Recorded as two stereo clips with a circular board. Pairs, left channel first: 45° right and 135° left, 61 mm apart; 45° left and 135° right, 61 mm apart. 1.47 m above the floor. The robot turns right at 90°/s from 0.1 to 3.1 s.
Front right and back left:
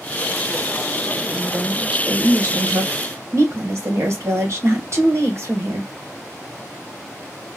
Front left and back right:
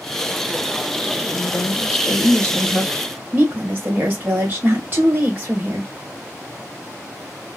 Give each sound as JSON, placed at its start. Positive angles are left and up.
{"t": 1.3, "sound": "a woman speaking", "azimuth_deg": 10, "distance_m": 1.3}